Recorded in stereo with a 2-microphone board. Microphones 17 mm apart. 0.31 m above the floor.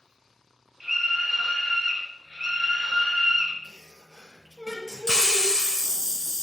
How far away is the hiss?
About 0.5 m.